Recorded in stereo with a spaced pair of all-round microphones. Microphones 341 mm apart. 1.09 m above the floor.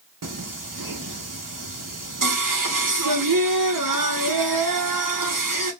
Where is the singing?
65° right (ahead or behind), 0.7 m.